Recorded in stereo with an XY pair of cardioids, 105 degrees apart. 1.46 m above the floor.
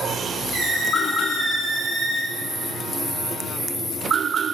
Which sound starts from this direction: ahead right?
A squeak, at 0.5 s.